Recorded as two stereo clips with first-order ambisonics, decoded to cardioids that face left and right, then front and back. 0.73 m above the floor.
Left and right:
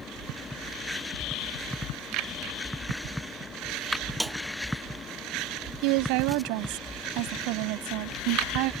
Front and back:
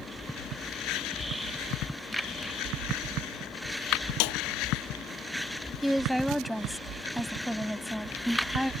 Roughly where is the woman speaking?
Right.